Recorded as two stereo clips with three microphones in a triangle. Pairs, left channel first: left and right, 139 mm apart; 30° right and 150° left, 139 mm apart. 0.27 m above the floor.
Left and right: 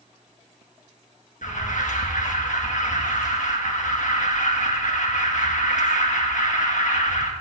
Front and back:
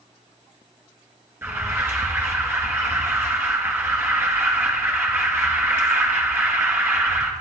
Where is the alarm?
80° left, 2.5 m.